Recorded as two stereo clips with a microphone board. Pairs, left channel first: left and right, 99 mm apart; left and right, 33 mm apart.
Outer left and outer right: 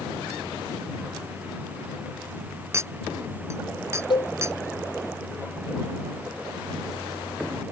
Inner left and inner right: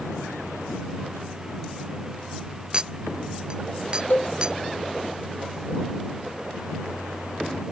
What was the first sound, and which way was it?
A clink, 30° right (ahead or behind).